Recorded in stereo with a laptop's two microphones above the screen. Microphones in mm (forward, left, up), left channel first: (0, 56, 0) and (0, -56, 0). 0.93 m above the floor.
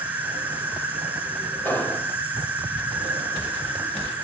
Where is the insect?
15° right (ahead or behind), 1.6 m.